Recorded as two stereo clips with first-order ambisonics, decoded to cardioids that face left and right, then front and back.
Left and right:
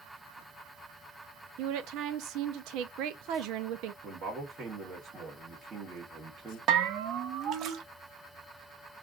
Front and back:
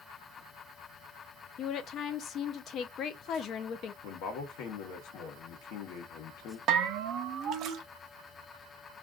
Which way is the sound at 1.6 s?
55° right.